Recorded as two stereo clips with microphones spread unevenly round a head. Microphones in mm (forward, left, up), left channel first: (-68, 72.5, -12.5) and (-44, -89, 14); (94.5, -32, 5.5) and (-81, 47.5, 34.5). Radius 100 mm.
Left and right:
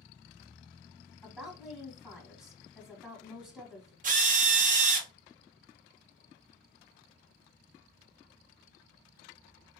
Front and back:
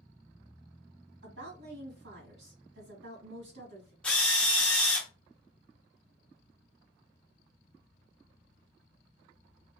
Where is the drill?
115° right, 0.7 m.